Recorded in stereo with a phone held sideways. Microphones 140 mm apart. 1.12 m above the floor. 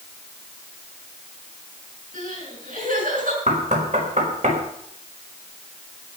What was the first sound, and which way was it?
Crying, 75° right (ahead or behind).